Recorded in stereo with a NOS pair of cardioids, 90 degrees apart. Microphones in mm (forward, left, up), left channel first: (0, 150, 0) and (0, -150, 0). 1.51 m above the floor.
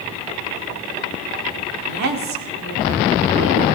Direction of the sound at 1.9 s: 70° right.